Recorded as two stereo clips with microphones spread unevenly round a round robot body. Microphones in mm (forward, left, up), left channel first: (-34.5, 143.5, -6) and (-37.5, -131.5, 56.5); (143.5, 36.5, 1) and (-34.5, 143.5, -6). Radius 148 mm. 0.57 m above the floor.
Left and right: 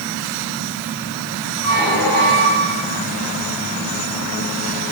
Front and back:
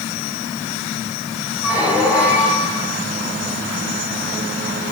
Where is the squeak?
65° left, 5 m.